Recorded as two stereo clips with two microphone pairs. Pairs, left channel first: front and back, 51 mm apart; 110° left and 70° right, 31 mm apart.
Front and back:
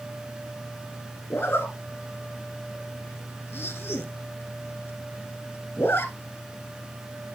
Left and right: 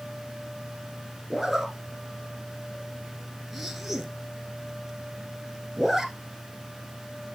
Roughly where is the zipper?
Ahead.